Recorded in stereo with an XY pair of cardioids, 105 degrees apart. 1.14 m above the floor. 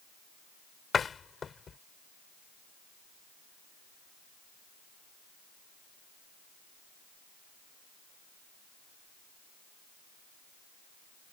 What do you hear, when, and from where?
0.9 s a door slam: 40° left